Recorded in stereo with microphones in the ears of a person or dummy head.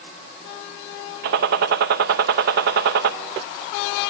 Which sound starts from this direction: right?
A gunshot, at 1.2 s.